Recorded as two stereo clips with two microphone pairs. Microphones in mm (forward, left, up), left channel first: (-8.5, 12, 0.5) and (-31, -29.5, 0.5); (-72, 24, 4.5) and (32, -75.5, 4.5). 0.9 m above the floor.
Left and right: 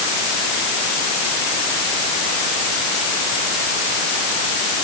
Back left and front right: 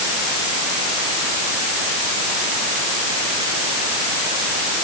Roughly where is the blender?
No blender in this recording.